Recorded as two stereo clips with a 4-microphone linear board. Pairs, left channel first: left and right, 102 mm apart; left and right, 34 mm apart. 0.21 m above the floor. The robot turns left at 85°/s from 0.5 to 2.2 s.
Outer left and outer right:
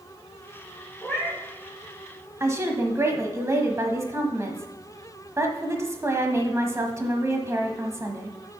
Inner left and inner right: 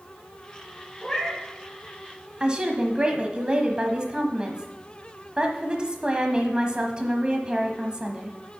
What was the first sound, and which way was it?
A cat meowing, 10° left.